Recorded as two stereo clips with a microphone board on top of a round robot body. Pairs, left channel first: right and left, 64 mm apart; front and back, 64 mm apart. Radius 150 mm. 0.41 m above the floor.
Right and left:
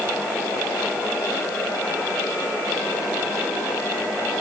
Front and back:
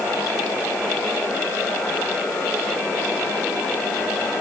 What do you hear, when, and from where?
Only background noise.